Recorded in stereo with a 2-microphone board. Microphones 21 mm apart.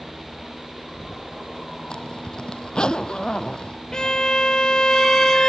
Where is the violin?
35° left (ahead or behind).